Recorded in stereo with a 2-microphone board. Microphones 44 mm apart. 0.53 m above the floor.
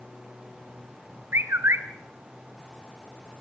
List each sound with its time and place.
1.3 s a bird: 75° right (ahead or behind), 1.8 m